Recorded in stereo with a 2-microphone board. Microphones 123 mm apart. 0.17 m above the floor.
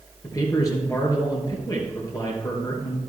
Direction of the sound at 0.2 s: 25° left (ahead or behind).